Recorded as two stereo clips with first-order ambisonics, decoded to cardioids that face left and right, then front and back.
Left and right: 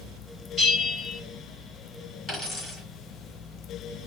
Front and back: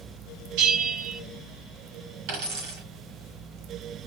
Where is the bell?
160° left, 3.5 m.